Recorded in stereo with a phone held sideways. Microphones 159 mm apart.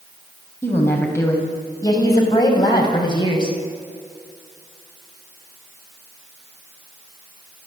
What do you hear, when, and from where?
0.6 s a woman speaking: 15° left (ahead or behind), 6 m; by 3.6 s 30° left (ahead or behind), 6 m